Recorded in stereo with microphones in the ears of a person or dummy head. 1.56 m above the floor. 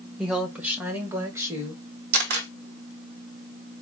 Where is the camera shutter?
60° right (ahead or behind), 1.0 m.